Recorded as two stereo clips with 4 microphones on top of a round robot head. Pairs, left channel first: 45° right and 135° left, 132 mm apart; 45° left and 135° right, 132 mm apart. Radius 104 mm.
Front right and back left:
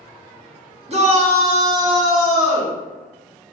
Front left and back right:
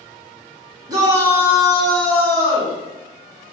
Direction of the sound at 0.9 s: 165° left.